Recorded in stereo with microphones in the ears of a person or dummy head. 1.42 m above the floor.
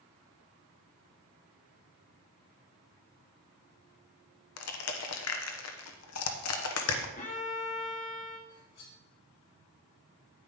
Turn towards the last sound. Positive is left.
turn(degrees=75)  # may be behind; listen again after turning